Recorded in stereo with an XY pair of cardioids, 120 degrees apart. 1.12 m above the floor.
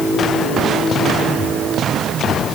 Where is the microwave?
No microwave in this recording.